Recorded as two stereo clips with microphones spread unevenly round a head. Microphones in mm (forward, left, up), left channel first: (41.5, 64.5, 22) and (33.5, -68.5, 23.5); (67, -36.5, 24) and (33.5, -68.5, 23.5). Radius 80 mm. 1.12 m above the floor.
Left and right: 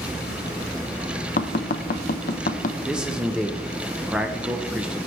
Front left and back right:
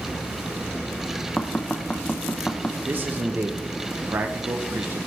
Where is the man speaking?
175° right, 0.8 m.